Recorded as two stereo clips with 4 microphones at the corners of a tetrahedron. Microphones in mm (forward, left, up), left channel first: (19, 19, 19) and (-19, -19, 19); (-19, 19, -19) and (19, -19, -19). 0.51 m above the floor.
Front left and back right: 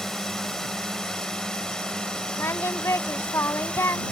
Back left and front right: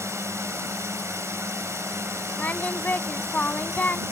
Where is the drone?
35° right; by 4.1 s 25° right.